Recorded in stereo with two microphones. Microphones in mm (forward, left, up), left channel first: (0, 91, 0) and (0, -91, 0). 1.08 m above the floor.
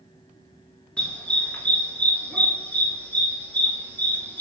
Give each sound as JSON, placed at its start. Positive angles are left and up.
{"t": 1.0, "sound": "a dog barking", "side_deg": 5, "distance_m": 4.5}